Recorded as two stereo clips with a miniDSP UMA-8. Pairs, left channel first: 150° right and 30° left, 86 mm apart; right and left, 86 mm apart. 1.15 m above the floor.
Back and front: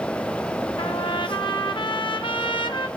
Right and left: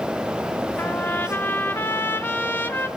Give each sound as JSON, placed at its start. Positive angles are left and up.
{"t": 0.8, "sound": "a trumpet", "azimuth_deg": -155, "distance_m": 1.0}